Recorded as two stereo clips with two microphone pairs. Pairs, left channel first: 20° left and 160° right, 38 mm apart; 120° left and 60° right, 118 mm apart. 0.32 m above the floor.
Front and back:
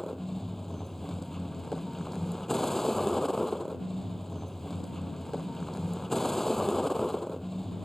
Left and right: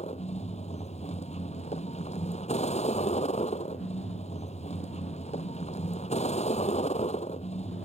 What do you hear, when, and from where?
0.0 s a vehicle: 105° left